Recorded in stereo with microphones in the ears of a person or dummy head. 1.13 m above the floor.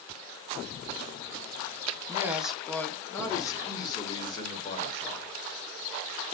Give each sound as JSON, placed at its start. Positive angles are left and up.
{"t": 2.1, "sound": "a man speaking", "side_deg": -20, "distance_m": 0.7}